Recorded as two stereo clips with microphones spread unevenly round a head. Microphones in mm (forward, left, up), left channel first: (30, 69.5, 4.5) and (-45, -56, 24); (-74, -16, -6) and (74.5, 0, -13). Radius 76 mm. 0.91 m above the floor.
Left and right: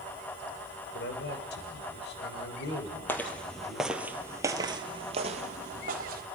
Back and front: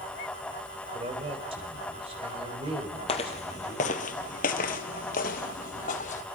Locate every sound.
0.9 s a man speaking: 60° left, 3 m
3.1 s footsteps: 140° left, 1.8 m; by 6.2 s 140° right, 2 m